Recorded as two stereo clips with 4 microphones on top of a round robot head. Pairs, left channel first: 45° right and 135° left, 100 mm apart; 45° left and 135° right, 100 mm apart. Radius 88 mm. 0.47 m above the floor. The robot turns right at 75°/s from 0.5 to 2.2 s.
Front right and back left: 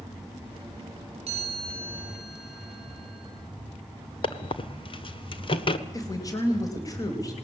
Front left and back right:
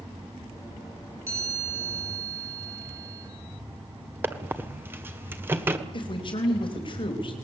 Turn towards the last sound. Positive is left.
turn(degrees=10)